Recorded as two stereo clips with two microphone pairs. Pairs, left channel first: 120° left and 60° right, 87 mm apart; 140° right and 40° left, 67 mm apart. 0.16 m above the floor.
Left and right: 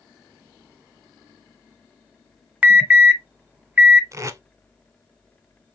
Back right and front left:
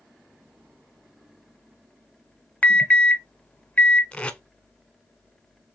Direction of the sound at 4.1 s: 75° right.